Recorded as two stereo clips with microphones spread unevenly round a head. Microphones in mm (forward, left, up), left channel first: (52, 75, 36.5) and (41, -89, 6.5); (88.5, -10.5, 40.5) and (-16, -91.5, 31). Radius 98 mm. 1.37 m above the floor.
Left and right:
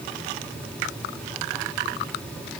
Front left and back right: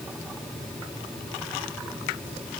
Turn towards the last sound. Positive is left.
No sound to turn to.